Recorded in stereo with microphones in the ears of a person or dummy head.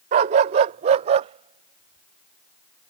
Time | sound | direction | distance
0.1 | a dog barking | 25° right (ahead or behind) | ?